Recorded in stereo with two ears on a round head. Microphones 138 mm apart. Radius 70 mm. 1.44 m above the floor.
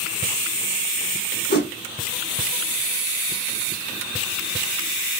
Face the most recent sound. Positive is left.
turn(degrees=70)  # may be behind; listen again after turning